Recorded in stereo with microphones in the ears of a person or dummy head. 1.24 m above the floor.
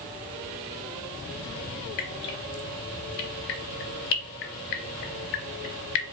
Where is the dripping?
50° left (ahead or behind), 0.7 m.